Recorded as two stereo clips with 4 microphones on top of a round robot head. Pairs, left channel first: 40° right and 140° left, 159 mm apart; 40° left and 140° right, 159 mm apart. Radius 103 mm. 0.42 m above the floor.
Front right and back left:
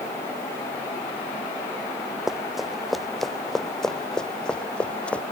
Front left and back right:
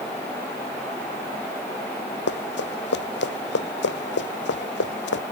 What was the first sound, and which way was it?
Running footsteps, 50° left.